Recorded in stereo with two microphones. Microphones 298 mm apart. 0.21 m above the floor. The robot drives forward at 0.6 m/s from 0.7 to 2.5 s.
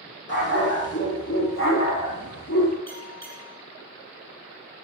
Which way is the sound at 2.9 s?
60° left (ahead or behind).